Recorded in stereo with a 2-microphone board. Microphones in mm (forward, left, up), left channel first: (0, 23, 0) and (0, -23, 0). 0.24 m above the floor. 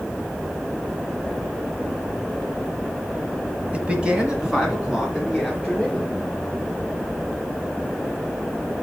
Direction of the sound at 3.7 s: 25° right (ahead or behind).